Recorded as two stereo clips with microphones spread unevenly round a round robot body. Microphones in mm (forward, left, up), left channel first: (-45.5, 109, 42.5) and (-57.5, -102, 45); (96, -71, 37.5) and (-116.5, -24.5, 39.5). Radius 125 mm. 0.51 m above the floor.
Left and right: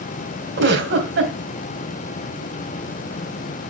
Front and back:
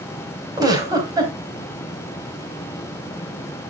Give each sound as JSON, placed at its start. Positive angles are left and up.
{"t": 0.6, "sound": "a giggle", "azimuth_deg": -120, "distance_m": 3.5}